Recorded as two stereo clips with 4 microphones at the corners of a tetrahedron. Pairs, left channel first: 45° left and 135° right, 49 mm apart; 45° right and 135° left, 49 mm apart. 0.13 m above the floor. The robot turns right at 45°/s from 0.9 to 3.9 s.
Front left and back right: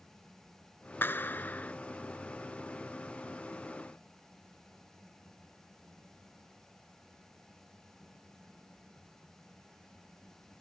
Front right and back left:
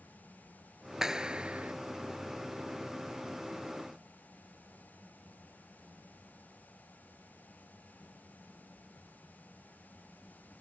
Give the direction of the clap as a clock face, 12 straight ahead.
10 o'clock.